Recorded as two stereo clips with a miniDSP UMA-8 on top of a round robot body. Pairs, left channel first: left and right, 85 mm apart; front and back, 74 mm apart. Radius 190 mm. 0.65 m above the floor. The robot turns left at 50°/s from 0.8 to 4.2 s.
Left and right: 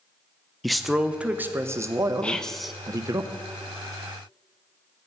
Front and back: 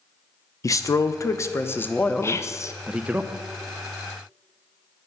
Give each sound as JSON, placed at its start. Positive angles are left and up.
{"t": 0.6, "sound": "a man speaking", "azimuth_deg": 0, "distance_m": 0.6}
{"t": 2.2, "sound": "whispering", "azimuth_deg": 20, "distance_m": 0.6}